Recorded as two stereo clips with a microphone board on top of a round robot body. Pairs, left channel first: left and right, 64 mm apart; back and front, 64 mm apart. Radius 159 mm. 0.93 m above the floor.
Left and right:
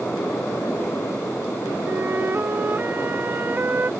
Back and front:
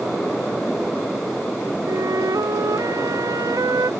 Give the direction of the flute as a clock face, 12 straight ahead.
1 o'clock.